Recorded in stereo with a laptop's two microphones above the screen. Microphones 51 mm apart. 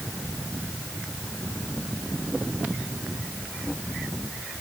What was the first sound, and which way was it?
Only background noise.